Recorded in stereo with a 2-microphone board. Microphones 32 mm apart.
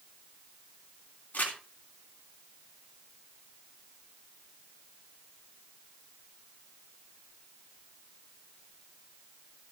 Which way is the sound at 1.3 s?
55° left (ahead or behind).